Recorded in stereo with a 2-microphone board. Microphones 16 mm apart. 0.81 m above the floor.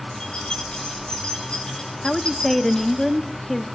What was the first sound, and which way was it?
Keys jangling, 70° left (ahead or behind).